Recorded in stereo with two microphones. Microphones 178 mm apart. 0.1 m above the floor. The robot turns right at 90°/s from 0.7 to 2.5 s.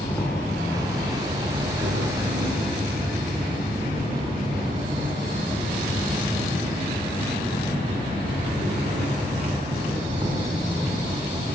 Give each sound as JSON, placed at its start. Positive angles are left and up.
{"t": 0.0, "sound": "an insect", "azimuth_deg": 170, "distance_m": 8.5}